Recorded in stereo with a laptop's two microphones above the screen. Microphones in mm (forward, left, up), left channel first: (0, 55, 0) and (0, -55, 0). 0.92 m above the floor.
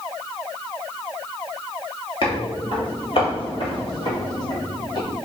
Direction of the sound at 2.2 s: 50° left (ahead or behind).